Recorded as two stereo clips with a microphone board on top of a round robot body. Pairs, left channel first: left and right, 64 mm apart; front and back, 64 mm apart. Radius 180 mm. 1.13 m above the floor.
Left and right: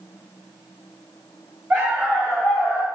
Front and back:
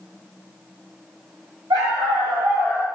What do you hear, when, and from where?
1.7 s a dog barking: 155° right, 0.9 m; by 2.9 s 120° left, 0.8 m